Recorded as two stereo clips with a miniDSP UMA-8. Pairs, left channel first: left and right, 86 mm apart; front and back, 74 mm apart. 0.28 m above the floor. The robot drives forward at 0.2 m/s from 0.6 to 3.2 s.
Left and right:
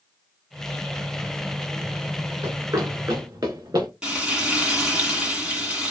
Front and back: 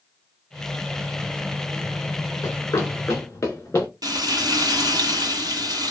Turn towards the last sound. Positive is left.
turn(degrees=-170)